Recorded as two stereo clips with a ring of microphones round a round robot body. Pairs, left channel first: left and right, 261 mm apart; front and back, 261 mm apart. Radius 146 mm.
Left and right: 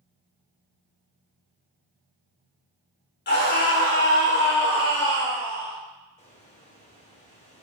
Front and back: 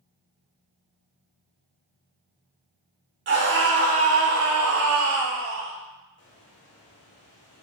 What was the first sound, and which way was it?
A scream, 135° left.